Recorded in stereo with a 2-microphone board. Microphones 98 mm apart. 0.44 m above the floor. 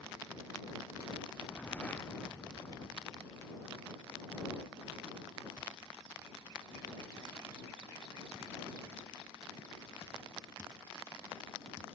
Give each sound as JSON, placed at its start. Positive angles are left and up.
{"t": 1.3, "sound": "a whoosh", "side_deg": 15}